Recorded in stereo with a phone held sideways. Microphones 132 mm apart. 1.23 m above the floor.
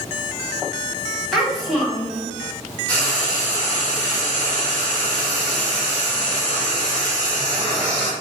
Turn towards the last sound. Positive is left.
turn(degrees=10)  # may be behind; listen again after turning